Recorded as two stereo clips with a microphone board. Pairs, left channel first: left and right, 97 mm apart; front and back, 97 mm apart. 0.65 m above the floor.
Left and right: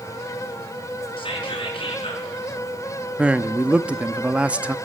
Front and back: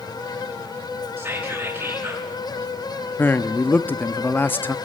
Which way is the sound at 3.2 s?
35° right.